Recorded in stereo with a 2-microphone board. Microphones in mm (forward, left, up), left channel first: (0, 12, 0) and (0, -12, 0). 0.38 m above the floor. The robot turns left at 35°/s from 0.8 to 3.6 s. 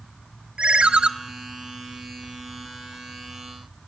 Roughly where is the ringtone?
Right.